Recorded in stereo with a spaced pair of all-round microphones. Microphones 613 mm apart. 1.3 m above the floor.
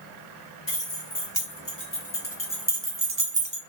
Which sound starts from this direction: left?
Keys jangling, at 0.7 s.